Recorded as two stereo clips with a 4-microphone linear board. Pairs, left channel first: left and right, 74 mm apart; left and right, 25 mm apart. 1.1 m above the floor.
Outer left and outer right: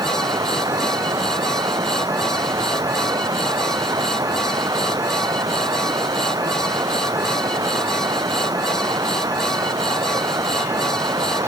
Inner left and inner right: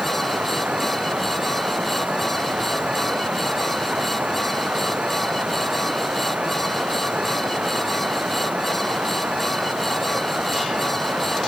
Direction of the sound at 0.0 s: 55° right (ahead or behind).